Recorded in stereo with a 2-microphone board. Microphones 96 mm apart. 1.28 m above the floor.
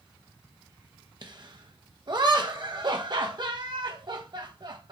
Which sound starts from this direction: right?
Laughter, at 1.2 s.